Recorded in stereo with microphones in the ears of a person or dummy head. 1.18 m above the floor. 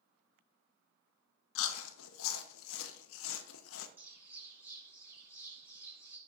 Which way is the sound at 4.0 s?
10° right (ahead or behind).